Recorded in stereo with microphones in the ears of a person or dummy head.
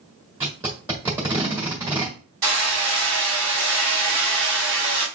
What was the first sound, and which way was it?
Tape being pulled, 10° right (ahead or behind).